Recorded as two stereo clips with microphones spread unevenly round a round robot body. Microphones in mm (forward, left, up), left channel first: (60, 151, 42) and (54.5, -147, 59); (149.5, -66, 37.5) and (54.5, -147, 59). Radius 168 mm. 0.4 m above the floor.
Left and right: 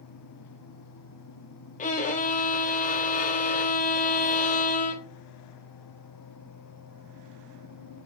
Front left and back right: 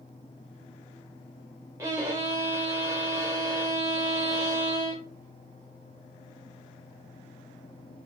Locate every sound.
1.8 s a violin: 145° left, 0.5 m